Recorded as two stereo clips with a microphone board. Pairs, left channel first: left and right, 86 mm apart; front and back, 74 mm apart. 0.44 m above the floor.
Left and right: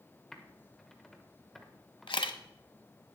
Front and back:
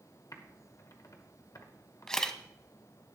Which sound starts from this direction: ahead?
Typing on a keyboard, at 0.3 s.